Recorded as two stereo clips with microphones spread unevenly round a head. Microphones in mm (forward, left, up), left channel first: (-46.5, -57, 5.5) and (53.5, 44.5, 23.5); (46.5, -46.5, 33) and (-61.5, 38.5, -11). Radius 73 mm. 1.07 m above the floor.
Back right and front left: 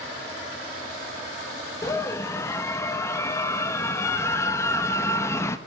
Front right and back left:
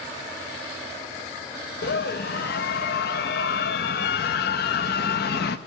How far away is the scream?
About 1.1 m.